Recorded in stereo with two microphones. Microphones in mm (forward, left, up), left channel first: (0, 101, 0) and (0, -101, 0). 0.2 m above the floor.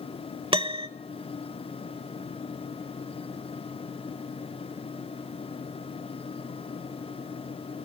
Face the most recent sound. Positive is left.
turn(degrees=-30)  # may be behind; listen again after turning